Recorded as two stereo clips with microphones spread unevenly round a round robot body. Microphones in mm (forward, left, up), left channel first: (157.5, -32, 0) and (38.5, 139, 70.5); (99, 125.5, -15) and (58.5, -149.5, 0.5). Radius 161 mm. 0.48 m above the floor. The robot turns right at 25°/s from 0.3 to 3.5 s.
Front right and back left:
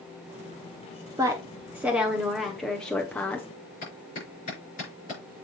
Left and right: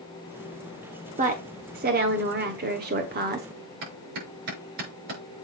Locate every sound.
1.2 s a woman speaking: 140° right, 0.9 m; by 3.5 s 85° right, 0.9 m
3.8 s a clap: 115° right, 6 m